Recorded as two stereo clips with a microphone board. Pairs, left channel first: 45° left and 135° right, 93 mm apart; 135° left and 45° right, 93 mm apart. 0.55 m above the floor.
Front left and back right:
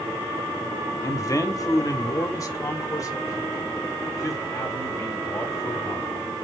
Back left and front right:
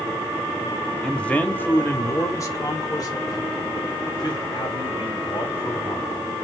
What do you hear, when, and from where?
1.0 s a man speaking: 55° left, 1.0 m; by 6.5 s 100° left, 3.5 m